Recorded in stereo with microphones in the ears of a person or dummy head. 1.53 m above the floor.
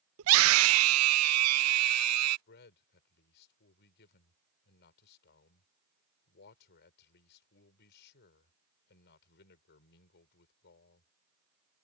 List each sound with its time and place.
0.2 s a scream: 75° right (ahead or behind); by 2.4 s 90° right
2.5 s a man speaking: 55° left (ahead or behind)